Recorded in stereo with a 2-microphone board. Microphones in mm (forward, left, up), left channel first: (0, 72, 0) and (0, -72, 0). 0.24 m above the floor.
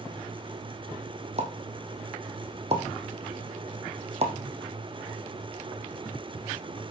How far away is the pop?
About 4 m.